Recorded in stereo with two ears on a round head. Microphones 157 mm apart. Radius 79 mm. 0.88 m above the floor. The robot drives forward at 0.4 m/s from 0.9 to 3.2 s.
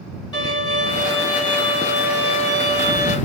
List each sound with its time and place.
0.3 s a violin: 25° left (ahead or behind), 1.6 m; by 3.2 s 40° left (ahead or behind), 1.0 m